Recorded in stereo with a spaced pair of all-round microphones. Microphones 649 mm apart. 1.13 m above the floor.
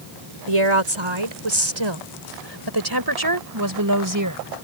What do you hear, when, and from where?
0.5 s a woman speaking: 50° right (ahead or behind); by 4.4 s 25° right (ahead or behind)